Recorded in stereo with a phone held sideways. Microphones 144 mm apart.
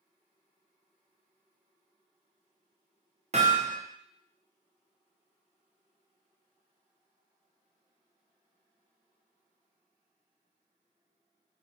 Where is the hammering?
50° right (ahead or behind), 0.8 m.